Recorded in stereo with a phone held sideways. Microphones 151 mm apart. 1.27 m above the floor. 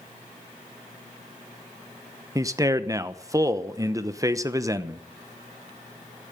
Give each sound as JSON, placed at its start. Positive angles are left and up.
{"t": 2.4, "sound": "a man speaking", "side_deg": -20, "distance_m": 0.9}